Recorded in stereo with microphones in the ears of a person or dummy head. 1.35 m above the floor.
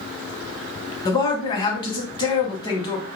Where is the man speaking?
20° left (ahead or behind), 0.7 m.